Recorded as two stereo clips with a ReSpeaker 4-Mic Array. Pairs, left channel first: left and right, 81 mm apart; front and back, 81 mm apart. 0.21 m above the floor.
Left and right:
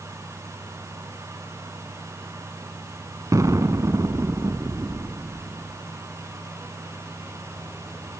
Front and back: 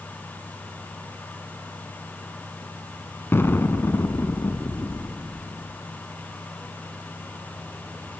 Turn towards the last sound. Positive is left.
turn(degrees=-55)